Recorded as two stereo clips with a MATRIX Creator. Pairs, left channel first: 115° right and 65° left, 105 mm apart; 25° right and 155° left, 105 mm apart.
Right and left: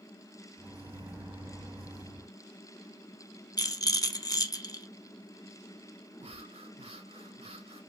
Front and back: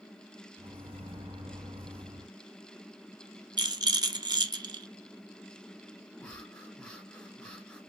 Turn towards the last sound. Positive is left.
turn(degrees=60)